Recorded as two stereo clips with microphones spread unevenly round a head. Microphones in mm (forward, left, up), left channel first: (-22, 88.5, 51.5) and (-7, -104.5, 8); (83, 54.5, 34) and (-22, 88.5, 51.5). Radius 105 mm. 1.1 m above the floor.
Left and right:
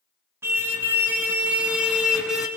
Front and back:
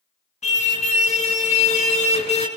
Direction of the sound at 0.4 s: 5° right.